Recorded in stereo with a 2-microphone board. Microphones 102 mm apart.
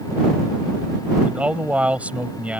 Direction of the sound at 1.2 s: 15° right (ahead or behind).